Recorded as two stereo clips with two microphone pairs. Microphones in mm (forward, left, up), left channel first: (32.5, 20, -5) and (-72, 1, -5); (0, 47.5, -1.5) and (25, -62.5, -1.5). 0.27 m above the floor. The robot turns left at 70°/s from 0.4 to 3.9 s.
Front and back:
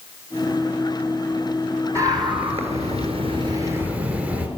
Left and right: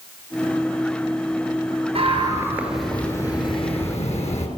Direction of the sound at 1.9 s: 110° right.